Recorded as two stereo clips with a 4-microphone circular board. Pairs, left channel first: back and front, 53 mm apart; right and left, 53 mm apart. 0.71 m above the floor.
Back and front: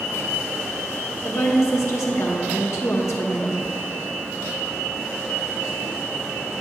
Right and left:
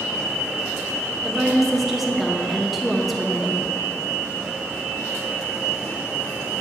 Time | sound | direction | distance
1.2 | a woman speaking | 175° left | 0.9 m